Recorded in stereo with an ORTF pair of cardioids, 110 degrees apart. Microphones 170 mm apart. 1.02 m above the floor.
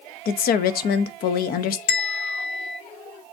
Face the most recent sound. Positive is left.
turn(degrees=70)